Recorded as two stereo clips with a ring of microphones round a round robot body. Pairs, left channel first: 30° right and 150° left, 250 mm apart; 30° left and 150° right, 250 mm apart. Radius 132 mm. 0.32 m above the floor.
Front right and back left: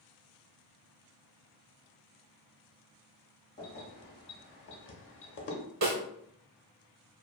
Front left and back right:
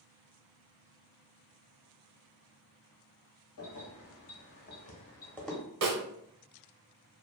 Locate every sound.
3.6 s keys jangling: 25° left, 1.3 m; by 5.6 s 65° right, 0.9 m
5.8 s a snare drum: 175° right, 0.9 m